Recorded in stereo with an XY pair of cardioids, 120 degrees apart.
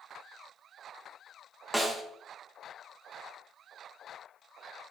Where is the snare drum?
10° right, 0.9 m.